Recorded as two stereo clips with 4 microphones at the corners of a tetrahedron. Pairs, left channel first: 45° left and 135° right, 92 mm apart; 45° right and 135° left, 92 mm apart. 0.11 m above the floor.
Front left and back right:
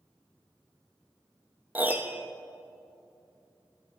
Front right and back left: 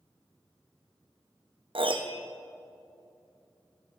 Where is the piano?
155° left, 0.7 m.